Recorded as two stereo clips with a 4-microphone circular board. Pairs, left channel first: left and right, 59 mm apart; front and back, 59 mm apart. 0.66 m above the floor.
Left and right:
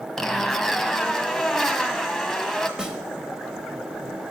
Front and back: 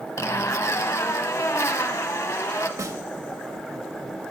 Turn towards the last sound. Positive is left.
turn(degrees=-165)